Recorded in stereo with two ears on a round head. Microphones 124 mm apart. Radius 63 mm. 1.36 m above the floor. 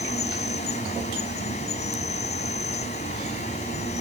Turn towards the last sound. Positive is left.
turn(degrees=50)  # may be behind; listen again after turning